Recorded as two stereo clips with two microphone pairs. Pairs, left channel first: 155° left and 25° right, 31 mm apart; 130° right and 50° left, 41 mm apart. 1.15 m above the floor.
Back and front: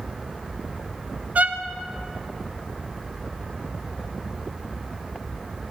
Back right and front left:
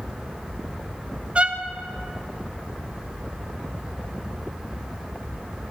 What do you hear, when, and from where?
1.4 s a violin: 10° right, 0.7 m